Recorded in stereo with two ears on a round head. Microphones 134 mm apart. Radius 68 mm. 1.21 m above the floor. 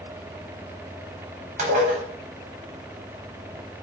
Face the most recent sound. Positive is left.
turn(degrees=-45)  # may be behind; listen again after turning